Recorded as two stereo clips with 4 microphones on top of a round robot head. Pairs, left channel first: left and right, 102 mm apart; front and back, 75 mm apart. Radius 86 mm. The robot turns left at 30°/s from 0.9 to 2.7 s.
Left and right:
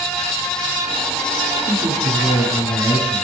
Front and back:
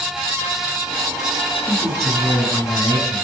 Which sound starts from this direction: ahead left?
A man speaking, at 1.6 s.